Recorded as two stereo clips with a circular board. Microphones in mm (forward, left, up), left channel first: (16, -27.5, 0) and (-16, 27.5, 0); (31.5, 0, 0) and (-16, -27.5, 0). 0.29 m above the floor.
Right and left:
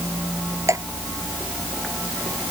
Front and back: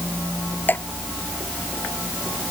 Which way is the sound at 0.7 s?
85° left.